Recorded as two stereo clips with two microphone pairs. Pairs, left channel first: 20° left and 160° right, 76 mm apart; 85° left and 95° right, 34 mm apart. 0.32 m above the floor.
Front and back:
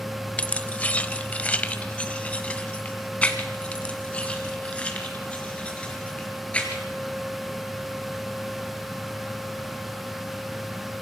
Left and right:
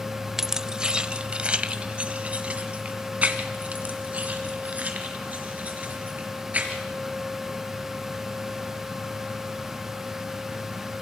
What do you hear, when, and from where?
0.4 s keys jangling: 35° right, 0.6 m; by 6.8 s 55° right, 4 m